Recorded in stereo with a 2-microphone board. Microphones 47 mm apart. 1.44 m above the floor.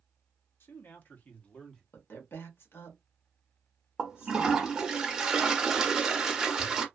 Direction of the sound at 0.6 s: 60° left (ahead or behind).